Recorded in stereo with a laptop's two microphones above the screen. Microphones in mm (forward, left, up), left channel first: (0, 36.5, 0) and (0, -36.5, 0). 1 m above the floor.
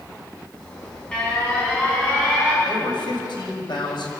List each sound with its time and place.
0.6 s an alarm: 10° left (ahead or behind), 9 m
2.6 s a man speaking: 70° left (ahead or behind), 6 m